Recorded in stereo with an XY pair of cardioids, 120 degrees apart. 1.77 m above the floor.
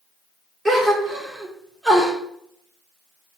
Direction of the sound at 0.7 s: 20° right.